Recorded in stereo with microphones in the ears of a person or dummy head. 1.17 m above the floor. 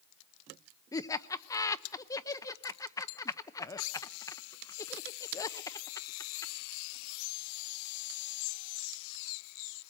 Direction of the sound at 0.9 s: 20° left (ahead or behind).